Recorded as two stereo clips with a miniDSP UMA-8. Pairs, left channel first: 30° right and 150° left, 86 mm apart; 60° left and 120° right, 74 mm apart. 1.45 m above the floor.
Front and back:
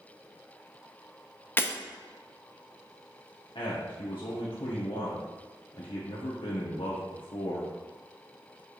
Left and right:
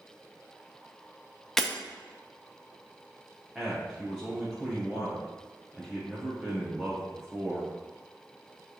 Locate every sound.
1.6 s breaking glass: 15° right, 0.8 m
3.5 s a man speaking: 40° right, 1.4 m